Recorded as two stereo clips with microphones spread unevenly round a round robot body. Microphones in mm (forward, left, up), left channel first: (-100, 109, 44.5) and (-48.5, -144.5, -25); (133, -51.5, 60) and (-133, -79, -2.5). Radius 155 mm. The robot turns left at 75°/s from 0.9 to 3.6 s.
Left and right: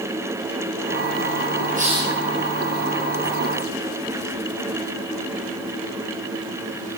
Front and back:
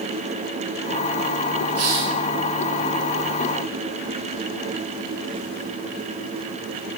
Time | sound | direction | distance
1.8 | a hiss | 135° right | 9 m